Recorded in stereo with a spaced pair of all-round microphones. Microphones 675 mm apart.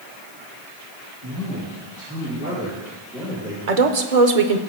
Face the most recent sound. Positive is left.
turn(degrees=-60)  # may be behind; listen again after turning